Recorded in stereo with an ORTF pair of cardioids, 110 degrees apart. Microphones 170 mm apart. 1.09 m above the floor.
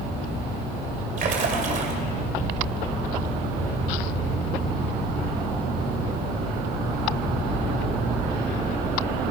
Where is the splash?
50° right, 2.5 m.